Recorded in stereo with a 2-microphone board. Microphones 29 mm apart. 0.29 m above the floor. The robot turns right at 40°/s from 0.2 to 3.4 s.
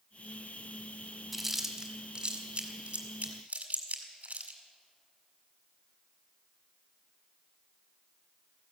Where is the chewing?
Centre (ahead or behind), 1.8 m; by 4.6 s 60° right (ahead or behind), 1.8 m.